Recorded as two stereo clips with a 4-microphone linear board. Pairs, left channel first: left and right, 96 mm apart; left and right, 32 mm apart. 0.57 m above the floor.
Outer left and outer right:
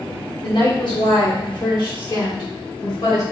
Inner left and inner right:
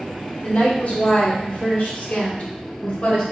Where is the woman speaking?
50° left (ahead or behind), 1.0 m; by 3.2 s 45° left (ahead or behind), 1.8 m.